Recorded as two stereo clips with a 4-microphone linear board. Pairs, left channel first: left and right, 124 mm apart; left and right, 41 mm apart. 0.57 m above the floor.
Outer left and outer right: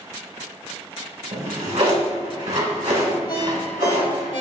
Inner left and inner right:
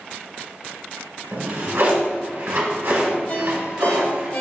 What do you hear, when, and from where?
1.3 s a drawer: 80° right, 1.6 m
3.3 s a ringtone: 40° left (ahead or behind), 1.2 m